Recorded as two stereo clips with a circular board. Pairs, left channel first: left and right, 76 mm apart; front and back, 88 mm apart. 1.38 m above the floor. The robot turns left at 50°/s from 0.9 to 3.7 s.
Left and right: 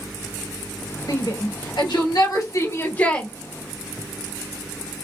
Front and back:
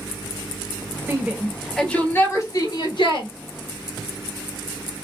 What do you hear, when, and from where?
1.1 s a shout: 125° left, 2.5 m; by 3.3 s 15° left, 2.5 m